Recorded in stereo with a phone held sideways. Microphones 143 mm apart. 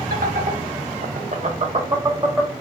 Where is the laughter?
85° right, 1.3 m; by 2.5 s 5° right (ahead or behind), 0.8 m.